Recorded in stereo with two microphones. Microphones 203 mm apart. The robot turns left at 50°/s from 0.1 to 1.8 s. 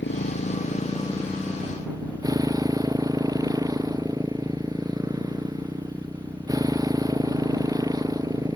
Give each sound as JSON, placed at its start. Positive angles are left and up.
{"t": 0.0, "sound": "a motorcycle", "azimuth_deg": 65}